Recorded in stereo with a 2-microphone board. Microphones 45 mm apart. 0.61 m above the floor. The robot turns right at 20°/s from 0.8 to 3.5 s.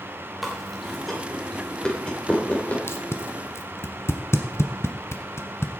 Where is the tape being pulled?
70° left (ahead or behind), 1.3 m; by 5.7 s 75° left (ahead or behind), 1.3 m.